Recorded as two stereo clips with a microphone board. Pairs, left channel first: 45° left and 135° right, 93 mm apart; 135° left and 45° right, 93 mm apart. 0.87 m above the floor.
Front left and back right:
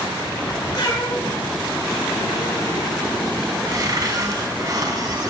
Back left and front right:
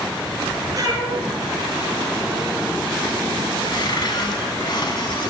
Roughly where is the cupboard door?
Behind.